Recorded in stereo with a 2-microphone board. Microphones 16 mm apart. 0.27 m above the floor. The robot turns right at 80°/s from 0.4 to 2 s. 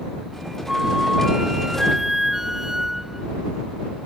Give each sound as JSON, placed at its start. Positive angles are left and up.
{"t": 0.7, "sound": "a flute", "azimuth_deg": -135}